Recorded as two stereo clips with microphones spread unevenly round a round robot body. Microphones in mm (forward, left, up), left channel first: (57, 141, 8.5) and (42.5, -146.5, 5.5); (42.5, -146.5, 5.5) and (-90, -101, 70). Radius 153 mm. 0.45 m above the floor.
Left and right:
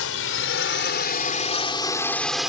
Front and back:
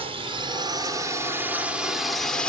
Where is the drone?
90° left; by 2.5 s 10° right.